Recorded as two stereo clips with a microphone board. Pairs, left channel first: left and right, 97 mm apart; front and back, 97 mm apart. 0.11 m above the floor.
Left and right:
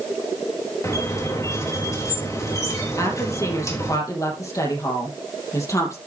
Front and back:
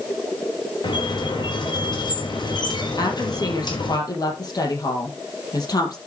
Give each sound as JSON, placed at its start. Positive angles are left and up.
{"t": 0.8, "sound": "a squeak", "azimuth_deg": 35, "distance_m": 4.0}
{"t": 3.0, "sound": "a woman speaking", "azimuth_deg": 40, "distance_m": 4.0}